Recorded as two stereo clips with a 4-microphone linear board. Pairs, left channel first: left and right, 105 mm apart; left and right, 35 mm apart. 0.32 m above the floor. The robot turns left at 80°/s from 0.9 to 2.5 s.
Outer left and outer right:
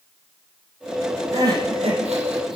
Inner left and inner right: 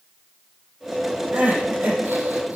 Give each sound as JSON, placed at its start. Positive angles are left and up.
{"t": 1.3, "sound": "crying", "azimuth_deg": -30, "distance_m": 4.5}